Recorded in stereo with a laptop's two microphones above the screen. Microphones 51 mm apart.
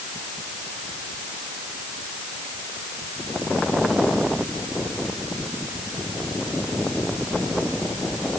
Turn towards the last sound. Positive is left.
No sound to turn to.